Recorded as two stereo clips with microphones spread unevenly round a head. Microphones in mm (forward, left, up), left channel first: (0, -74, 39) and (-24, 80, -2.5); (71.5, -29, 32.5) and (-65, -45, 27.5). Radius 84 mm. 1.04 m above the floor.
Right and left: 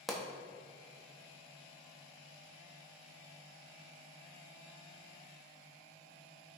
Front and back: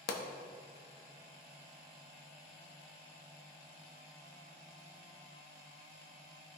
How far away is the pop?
About 0.9 m.